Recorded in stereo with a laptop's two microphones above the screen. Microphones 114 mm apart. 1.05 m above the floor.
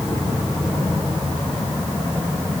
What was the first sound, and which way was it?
Only background noise.